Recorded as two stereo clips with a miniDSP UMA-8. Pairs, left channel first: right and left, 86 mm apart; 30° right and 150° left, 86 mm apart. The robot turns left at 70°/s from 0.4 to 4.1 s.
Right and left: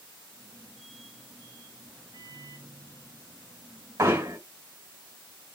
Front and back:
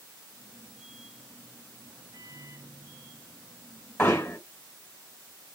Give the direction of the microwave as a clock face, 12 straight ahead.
8 o'clock.